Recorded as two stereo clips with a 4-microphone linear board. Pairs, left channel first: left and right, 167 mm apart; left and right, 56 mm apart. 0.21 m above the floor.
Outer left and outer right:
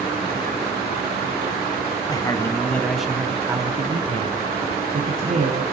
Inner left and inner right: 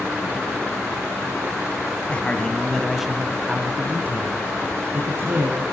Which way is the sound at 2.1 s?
25° left (ahead or behind).